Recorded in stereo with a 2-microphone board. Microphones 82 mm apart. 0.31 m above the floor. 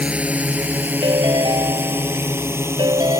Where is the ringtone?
80° right.